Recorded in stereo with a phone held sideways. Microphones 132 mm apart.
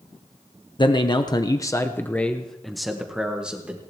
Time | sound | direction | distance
0.8 | a man speaking | 35° left (ahead or behind) | 0.9 m